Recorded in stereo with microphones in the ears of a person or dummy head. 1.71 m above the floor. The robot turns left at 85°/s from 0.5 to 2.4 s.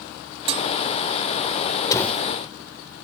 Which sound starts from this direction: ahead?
A door slam, at 1.9 s.